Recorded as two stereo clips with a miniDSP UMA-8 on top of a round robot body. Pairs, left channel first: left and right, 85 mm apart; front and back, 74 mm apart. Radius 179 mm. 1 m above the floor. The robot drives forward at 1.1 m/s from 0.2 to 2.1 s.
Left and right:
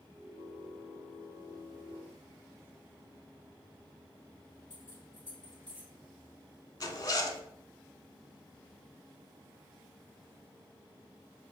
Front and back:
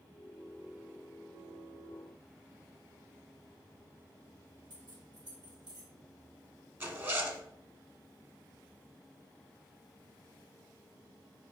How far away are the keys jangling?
About 2.5 m.